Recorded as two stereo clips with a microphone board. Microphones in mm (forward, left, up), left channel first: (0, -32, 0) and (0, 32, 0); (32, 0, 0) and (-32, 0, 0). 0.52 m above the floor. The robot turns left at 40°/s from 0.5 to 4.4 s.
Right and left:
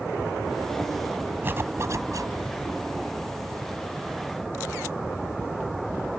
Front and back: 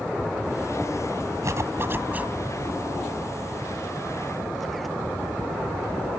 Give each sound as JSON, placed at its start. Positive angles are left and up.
{"t": 1.4, "sound": "a zipper", "azimuth_deg": 145}